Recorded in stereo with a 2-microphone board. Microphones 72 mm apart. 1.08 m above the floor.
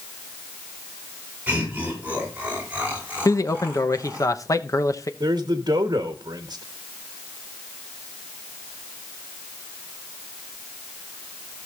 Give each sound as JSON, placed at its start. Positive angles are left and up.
{"t": 1.5, "sound": "laughter", "side_deg": -25, "distance_m": 5.0}
{"t": 3.2, "sound": "a man speaking", "side_deg": 50, "distance_m": 0.9}
{"t": 5.2, "sound": "a man speaking", "side_deg": -85, "distance_m": 1.2}